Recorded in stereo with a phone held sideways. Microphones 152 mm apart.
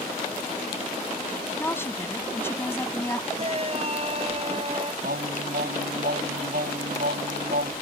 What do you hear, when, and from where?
1.6 s a woman speaking: 15° left (ahead or behind)
3.4 s a shout: 40° right (ahead or behind)
5.0 s singing: 85° right